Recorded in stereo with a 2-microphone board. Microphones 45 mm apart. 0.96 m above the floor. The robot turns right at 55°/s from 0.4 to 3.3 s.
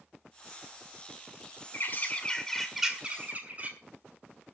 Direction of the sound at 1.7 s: 130° left.